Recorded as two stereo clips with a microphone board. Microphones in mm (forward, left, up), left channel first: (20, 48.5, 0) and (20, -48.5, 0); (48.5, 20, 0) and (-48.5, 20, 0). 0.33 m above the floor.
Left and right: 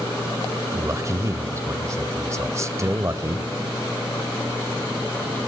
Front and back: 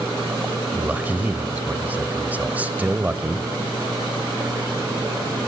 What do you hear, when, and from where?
0.7 s a man speaking: 120° right, 1.1 m